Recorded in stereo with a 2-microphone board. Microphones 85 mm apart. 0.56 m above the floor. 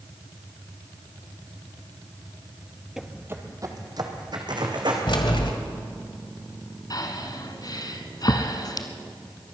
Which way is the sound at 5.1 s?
70° left (ahead or behind).